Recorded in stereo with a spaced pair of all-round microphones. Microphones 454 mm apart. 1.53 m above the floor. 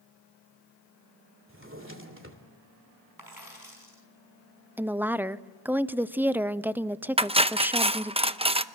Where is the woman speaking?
5° right (ahead or behind), 0.6 m.